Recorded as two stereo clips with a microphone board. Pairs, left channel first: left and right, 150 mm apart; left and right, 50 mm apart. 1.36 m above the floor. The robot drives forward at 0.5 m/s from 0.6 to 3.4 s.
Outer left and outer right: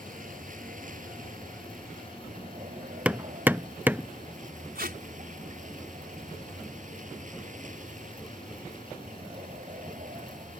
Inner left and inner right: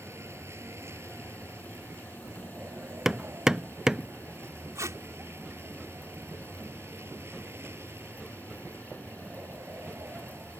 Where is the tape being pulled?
85° right.